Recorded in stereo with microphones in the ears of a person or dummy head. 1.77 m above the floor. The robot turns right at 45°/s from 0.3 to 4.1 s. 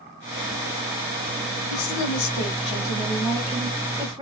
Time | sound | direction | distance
1.7 | a woman speaking | 100° left | 1.0 m